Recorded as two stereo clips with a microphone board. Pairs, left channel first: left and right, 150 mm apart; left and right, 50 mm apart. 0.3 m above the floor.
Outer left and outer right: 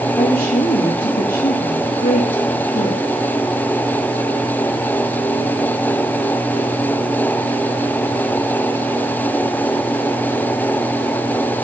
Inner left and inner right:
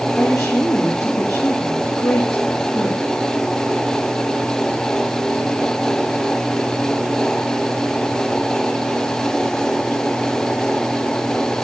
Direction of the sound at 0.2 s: 70° left (ahead or behind).